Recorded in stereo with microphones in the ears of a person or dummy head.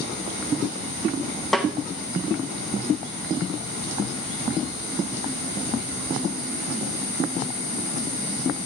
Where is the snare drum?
Centre (ahead or behind), 0.5 m.